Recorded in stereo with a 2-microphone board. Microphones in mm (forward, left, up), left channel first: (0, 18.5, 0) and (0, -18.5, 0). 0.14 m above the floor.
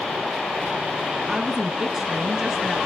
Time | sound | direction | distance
1.3 | a woman speaking | 15° right (ahead or behind) | 1.1 m